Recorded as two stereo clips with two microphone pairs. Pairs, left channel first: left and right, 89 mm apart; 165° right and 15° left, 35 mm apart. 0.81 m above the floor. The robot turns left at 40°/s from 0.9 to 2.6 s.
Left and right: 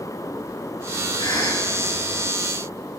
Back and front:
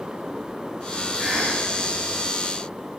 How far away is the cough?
About 6 m.